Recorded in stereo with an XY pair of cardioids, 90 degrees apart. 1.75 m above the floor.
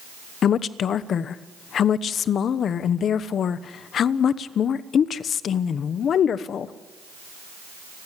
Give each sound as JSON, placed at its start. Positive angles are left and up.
{"t": 0.4, "sound": "a woman speaking", "azimuth_deg": 65, "distance_m": 1.1}